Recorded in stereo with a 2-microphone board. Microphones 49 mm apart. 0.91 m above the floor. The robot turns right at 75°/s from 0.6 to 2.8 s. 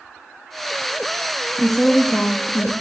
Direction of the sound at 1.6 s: 10° right.